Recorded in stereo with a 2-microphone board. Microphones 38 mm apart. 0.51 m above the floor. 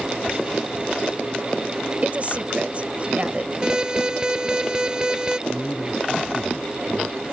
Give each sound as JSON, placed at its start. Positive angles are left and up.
{"t": 2.0, "sound": "a woman speaking", "side_deg": -35}
{"t": 3.6, "sound": "an alarm", "side_deg": -20}
{"t": 5.5, "sound": "a man speaking", "side_deg": 20}